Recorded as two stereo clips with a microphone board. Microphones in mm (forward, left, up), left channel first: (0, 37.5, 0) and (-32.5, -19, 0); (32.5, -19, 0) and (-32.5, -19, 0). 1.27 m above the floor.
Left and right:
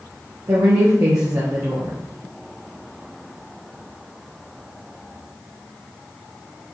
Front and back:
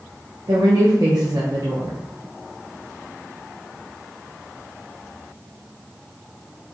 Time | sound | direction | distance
0.5 | a woman speaking | 160° right | 0.9 m